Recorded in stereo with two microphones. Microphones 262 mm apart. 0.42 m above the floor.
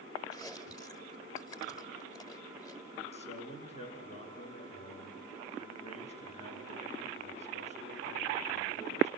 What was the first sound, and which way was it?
Chewing, 15° left (ahead or behind).